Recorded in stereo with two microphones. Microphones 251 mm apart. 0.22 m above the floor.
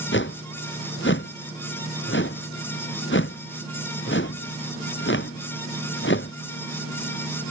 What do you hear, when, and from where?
0.1 s a whoosh: 50° left (ahead or behind)